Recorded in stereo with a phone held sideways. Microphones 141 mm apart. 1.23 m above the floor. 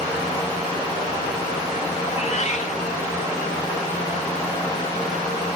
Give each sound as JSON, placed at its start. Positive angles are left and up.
{"t": 2.1, "sound": "a cat meowing", "side_deg": 55, "distance_m": 1.6}